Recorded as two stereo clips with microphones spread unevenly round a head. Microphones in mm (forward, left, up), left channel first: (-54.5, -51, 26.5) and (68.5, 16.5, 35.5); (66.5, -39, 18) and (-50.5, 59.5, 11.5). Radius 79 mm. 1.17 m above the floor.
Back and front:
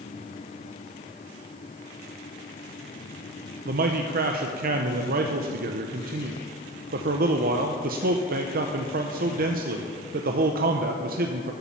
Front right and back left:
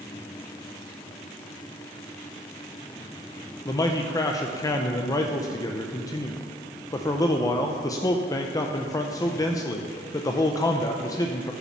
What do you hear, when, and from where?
3.6 s a man speaking: 30° left, 0.7 m